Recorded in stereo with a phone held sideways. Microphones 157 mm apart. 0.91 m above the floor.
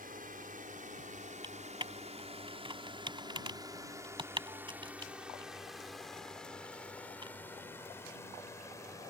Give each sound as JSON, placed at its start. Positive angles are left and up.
{"t": 0.0, "sound": "a drone", "side_deg": -65}
{"t": 1.4, "sound": "typing on a keyboard", "side_deg": -30}